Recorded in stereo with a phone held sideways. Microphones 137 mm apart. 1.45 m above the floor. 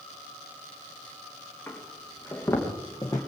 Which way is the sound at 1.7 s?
15° left (ahead or behind).